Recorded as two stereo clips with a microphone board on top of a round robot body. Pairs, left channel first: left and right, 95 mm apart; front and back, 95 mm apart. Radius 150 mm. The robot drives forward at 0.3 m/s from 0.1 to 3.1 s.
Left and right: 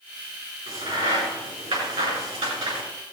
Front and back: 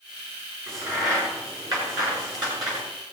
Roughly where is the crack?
Behind right.